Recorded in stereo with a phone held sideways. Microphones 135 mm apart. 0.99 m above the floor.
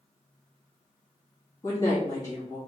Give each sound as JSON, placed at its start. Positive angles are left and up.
{"t": 1.6, "sound": "a woman speaking", "side_deg": 25, "distance_m": 2.0}